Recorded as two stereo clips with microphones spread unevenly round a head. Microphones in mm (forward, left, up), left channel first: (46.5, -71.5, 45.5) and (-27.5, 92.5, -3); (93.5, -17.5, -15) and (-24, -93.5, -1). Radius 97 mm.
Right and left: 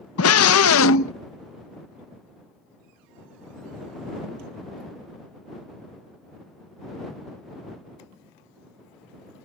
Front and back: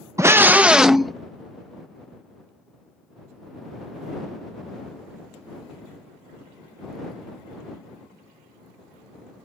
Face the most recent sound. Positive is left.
turn(degrees=-55)